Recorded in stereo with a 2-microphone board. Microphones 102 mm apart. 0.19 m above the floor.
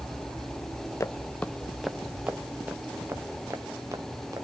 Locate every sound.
1.0 s footsteps: 30° left (ahead or behind), 0.9 m; by 4.5 s 30° right (ahead or behind), 2.5 m